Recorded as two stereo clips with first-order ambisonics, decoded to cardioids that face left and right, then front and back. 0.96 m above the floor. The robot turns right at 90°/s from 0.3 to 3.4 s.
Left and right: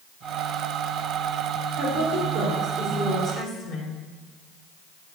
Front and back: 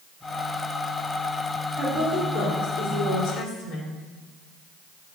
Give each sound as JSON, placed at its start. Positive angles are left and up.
{"t": 1.8, "sound": "a woman speaking", "azimuth_deg": -115, "distance_m": 3.0}